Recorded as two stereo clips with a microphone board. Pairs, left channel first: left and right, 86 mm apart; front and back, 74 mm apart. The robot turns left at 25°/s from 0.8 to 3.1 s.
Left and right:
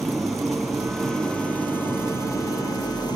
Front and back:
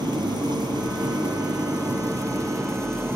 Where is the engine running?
Straight behind, 3.5 m; by 3.2 s 125° left, 3.5 m.